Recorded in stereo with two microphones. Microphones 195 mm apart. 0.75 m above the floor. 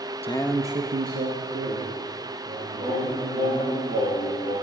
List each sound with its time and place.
0.2 s a man speaking: 30° left (ahead or behind), 0.7 m; by 3.8 s 80° right, 4 m
2.8 s singing: 40° right (ahead or behind), 4 m